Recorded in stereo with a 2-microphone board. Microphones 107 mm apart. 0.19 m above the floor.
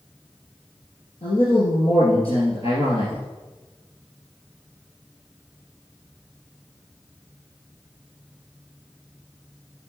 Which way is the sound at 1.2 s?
60° left (ahead or behind).